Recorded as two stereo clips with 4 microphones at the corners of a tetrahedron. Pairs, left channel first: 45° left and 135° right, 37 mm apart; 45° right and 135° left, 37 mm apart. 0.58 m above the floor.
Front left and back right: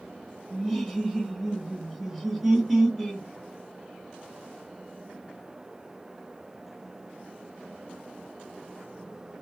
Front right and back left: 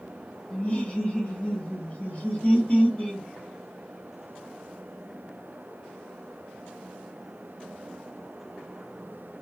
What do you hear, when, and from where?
0.5 s laughter: 60° right, 1.0 m